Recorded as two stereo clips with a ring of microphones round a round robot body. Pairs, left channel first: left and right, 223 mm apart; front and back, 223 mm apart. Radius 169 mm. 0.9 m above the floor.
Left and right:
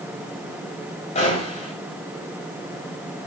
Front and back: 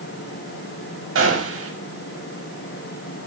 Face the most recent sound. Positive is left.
turn(degrees=160)